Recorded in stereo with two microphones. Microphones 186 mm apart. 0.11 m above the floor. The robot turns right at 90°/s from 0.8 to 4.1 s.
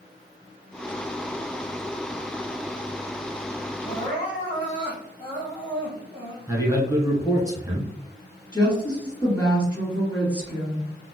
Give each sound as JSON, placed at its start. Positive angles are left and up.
{"t": 3.8, "sound": "crying", "side_deg": 35, "distance_m": 1.9}
{"t": 6.5, "sound": "a man speaking", "side_deg": -20, "distance_m": 1.1}
{"t": 8.5, "sound": "a woman speaking", "side_deg": 10, "distance_m": 1.9}